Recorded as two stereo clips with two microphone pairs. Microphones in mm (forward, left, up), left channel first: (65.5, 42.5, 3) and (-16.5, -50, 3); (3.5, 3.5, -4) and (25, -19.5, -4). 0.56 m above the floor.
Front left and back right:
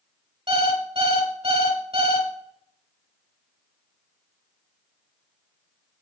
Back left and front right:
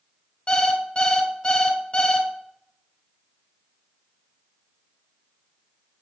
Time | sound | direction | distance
0.5 | an alarm clock | 170° right | 1.1 m